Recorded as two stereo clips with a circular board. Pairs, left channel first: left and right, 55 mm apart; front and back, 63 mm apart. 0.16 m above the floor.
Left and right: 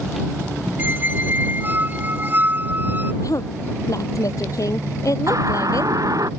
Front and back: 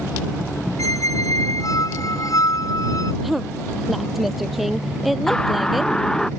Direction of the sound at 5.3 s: 80° right.